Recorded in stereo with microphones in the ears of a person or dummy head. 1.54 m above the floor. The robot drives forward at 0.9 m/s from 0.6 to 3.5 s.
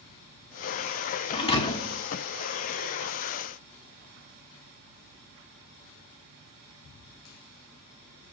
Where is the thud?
35° left (ahead or behind), 1.6 m; by 2.0 s 25° left (ahead or behind), 2 m.